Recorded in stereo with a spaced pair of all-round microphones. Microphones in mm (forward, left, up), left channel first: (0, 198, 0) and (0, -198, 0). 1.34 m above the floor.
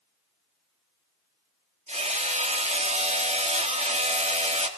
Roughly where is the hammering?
Centre.